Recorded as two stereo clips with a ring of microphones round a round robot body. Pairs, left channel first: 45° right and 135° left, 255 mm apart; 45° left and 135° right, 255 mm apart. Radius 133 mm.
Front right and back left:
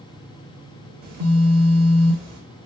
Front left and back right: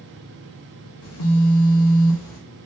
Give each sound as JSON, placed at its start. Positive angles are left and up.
{"t": 1.0, "sound": "a phone buzzing", "azimuth_deg": 80, "distance_m": 1.0}